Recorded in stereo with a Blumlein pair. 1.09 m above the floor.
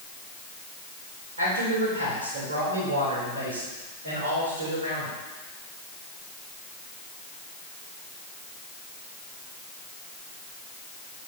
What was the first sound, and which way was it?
A man speaking, 65° right.